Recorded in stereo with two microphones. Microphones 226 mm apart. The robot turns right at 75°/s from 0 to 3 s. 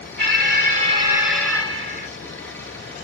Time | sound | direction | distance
0.2 | an alarm | 85° right | 2 m